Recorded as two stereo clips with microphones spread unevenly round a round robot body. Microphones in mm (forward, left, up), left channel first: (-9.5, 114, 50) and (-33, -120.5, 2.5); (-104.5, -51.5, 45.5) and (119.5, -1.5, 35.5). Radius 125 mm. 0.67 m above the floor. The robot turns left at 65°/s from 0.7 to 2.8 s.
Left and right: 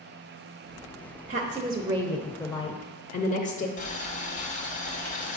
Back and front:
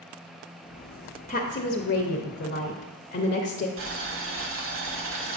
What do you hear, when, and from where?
1.3 s a woman speaking: 115° right, 0.7 m; by 3.7 s 145° left, 0.7 m
3.8 s boiling: 25° left, 1.1 m